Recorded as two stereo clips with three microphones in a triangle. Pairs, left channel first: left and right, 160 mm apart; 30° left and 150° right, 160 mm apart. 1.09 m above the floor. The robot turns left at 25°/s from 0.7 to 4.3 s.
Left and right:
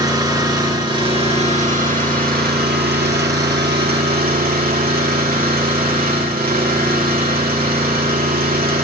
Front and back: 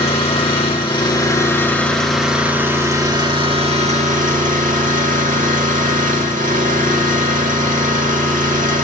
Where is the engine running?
25° right, 2.5 m; by 8.8 s 115° right, 2.5 m.